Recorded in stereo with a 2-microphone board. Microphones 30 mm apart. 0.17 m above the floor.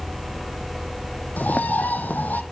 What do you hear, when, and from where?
1.4 s a bird: 65° left (ahead or behind), 1.0 m